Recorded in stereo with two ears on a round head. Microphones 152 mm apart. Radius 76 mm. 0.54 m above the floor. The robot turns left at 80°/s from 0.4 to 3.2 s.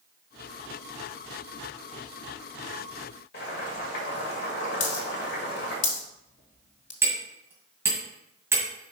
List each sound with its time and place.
3.3 s boiling: 60° left (ahead or behind), 2 m
4.8 s a dropped coin: 50° left (ahead or behind), 1.7 m
7.0 s hammering: 15° right (ahead or behind), 2 m